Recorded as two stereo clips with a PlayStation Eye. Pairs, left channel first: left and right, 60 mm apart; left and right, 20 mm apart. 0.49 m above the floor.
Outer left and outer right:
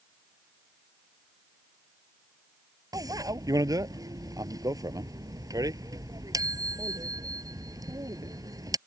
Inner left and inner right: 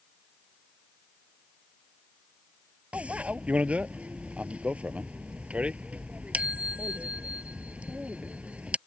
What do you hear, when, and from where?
2.9 s a bicycle bell: 85° right